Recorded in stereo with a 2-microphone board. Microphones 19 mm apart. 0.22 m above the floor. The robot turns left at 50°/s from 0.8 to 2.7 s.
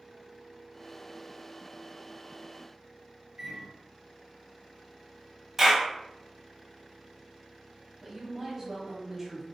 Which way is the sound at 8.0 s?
20° right (ahead or behind).